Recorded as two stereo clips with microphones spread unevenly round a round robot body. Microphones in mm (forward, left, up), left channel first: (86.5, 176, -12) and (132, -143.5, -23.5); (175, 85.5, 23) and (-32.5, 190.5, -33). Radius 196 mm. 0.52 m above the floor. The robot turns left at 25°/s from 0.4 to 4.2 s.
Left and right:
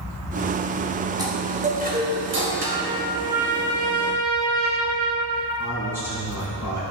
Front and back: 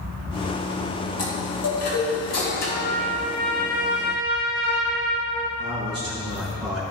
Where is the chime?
5° right, 3 m; by 2.9 s 50° right, 3 m.